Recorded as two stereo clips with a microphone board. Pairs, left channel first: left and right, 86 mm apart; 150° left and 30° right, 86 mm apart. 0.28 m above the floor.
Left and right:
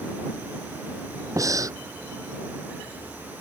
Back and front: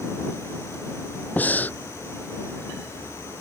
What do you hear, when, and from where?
1.4 s breathing: 140° right